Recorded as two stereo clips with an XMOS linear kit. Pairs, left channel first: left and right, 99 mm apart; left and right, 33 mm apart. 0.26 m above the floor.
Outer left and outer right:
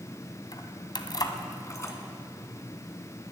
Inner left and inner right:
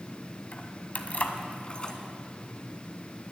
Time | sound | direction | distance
0.5 | keys jangling | 45° left (ahead or behind) | 1.4 m